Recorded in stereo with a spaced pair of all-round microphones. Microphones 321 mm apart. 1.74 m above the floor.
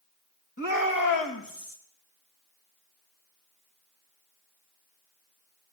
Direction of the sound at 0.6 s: 60° left (ahead or behind).